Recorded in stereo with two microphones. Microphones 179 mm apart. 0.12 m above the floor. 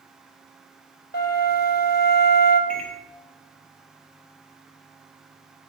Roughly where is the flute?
Left.